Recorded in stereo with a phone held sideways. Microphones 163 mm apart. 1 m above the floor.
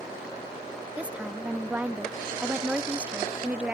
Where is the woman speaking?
10° right (ahead or behind).